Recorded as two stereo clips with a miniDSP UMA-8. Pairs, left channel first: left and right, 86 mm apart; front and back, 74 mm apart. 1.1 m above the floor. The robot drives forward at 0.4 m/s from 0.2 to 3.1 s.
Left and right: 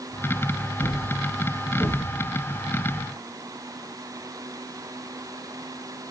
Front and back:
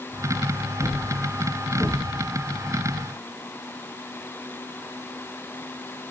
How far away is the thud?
About 3 m.